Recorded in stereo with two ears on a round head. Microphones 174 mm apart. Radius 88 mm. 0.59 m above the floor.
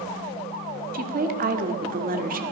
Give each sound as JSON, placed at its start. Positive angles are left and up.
{"t": 0.9, "sound": "a woman speaking", "side_deg": -45, "distance_m": 1.7}